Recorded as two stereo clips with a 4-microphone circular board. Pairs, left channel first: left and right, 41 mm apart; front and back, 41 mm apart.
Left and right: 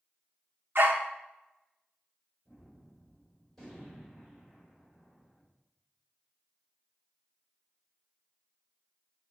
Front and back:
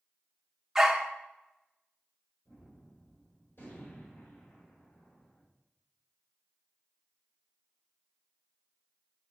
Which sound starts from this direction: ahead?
A gunshot, at 2.5 s.